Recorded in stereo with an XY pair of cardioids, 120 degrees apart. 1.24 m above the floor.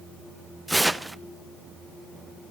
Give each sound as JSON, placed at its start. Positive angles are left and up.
{"t": 0.7, "sound": "tearing paper", "azimuth_deg": -5, "distance_m": 0.6}